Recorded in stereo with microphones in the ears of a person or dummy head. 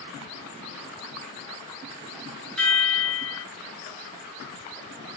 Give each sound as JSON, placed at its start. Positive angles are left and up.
{"t": 2.6, "sound": "a chime", "side_deg": 5, "distance_m": 0.7}